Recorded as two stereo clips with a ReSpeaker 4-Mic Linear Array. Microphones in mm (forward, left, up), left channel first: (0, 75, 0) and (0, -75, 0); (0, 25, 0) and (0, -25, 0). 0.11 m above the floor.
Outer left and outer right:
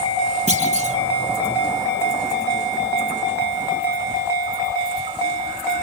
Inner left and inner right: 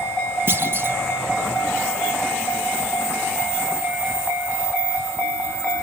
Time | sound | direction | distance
0.5 | a clunk | 50° right (ahead or behind) | 4 m